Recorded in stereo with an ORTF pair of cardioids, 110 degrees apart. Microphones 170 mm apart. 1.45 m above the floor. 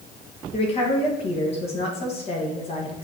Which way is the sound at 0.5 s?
35° left.